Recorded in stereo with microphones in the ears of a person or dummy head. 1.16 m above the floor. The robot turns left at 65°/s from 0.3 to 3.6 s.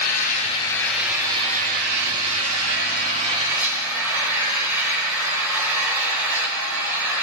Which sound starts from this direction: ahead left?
An engine running, at 0.0 s.